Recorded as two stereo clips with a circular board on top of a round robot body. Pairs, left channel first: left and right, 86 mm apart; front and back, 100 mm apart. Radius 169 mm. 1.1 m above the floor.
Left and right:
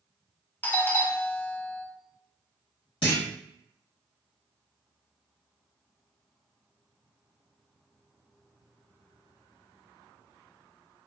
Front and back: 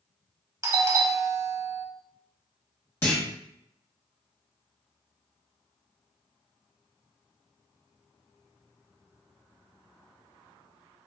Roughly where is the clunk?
Left.